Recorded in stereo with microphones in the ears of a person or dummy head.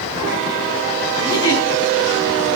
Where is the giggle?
20° left (ahead or behind), 4.5 m.